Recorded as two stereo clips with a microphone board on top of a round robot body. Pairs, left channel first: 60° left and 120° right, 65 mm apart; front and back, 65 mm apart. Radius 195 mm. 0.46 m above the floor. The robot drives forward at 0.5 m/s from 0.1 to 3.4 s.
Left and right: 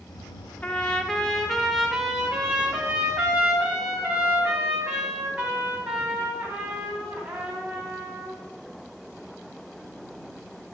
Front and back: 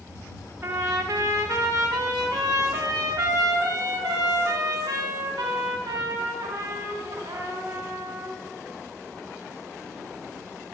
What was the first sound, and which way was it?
A trumpet, 130° left.